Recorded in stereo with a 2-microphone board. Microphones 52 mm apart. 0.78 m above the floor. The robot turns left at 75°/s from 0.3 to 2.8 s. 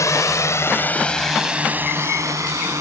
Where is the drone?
70° left (ahead or behind); by 2.8 s 70° right (ahead or behind).